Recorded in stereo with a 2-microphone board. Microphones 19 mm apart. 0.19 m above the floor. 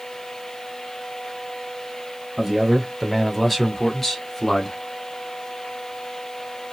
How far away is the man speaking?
About 1.7 m.